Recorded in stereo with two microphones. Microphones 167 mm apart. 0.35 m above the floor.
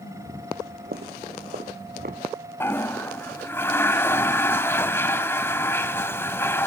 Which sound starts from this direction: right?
Footsteps, at 0.5 s.